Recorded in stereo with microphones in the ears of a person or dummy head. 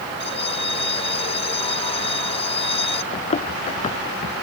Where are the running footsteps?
30° left (ahead or behind); by 4.3 s 35° left (ahead or behind).